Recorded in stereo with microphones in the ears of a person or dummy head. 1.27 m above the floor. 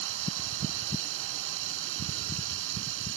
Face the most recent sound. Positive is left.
turn(degrees=-80)